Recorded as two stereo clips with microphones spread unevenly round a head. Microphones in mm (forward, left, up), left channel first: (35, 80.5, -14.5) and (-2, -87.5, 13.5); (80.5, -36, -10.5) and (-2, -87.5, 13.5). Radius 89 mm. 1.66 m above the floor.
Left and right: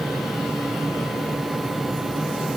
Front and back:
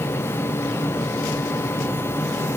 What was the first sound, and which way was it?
Only background noise.